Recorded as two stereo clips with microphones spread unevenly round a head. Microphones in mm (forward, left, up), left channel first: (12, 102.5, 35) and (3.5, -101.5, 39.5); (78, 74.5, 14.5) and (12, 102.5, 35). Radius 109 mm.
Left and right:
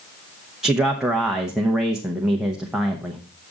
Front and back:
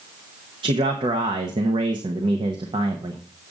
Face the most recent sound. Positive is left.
turn(degrees=180)